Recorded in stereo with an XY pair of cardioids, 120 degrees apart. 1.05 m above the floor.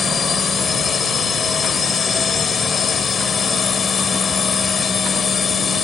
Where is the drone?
35° left.